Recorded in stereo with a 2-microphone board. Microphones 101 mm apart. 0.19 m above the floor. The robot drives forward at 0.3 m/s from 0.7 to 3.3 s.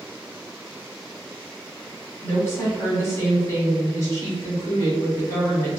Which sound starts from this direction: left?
A woman speaking, at 2.2 s.